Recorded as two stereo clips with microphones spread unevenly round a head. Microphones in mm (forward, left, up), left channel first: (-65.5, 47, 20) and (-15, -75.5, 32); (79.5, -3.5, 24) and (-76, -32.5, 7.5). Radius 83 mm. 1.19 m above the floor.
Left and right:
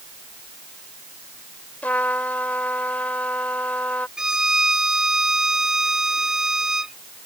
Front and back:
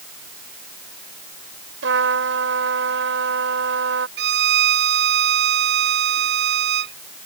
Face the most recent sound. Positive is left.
turn(degrees=-155)